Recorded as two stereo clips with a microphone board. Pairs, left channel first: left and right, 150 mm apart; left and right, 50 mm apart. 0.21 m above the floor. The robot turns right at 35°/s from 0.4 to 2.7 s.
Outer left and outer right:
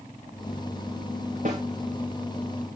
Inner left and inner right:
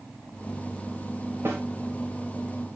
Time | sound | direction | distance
1.4 | a snare drum | 55° right (ahead or behind) | 8 m